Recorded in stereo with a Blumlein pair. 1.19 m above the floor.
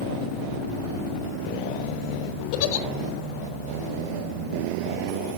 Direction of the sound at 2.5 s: 45° left.